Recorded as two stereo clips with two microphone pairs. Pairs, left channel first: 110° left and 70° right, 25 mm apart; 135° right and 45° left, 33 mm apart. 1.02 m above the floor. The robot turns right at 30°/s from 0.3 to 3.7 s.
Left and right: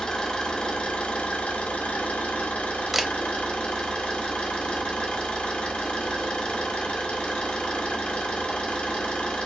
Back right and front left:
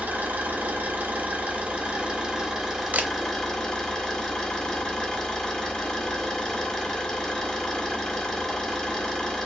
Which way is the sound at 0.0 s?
55° left.